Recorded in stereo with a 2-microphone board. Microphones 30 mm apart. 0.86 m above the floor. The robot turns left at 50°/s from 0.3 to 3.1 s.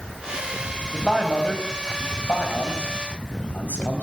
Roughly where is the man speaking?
Centre.